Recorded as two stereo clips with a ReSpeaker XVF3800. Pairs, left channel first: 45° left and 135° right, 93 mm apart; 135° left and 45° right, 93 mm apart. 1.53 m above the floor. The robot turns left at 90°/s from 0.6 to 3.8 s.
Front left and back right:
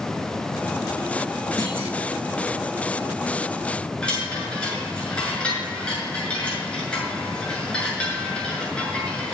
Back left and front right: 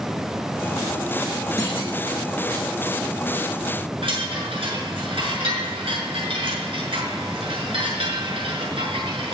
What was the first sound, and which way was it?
A clunk, 175° right.